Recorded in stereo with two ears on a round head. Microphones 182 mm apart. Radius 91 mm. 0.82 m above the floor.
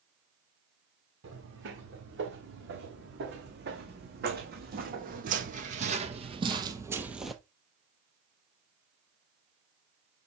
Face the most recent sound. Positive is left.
turn(degrees=5)  # may be behind; listen again after turning